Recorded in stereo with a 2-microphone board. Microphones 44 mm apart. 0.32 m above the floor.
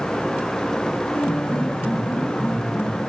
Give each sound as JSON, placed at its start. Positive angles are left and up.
{"t": 1.1, "sound": "a piano", "side_deg": 55, "distance_m": 5.0}